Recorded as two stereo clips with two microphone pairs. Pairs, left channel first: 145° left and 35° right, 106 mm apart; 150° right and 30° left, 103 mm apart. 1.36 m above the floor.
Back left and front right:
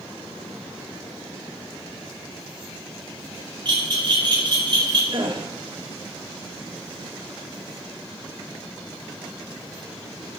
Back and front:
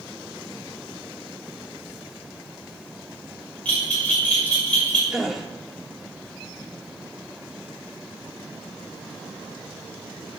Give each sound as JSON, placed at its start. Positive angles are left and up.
{"t": 3.6, "sound": "a bell", "azimuth_deg": -70, "distance_m": 6.0}
{"t": 5.1, "sound": "a gasp", "azimuth_deg": -55, "distance_m": 1.4}